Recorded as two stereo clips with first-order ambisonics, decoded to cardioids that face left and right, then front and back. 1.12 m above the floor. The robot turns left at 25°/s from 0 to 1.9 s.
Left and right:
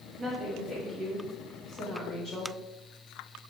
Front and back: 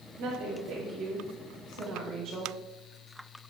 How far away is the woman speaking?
About 1.0 m.